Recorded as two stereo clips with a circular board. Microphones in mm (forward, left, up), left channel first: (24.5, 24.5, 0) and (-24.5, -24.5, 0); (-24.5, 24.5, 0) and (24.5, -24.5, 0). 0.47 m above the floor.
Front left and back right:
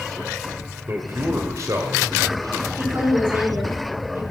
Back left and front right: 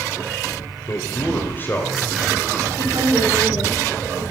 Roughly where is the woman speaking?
Right.